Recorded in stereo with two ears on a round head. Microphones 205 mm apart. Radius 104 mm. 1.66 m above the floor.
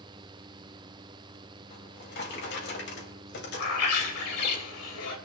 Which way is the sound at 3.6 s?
80° left.